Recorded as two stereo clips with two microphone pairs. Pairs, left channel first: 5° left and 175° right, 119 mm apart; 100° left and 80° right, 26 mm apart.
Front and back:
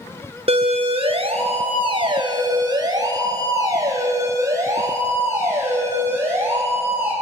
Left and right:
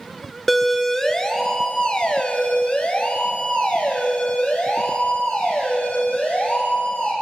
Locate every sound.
0.5 s a siren: 175° right, 2 m; by 7.1 s 110° left, 8 m